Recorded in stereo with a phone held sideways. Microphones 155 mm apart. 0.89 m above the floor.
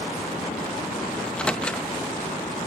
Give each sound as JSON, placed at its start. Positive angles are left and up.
{"t": 1.2, "sound": "a microwave", "side_deg": 5, "distance_m": 0.6}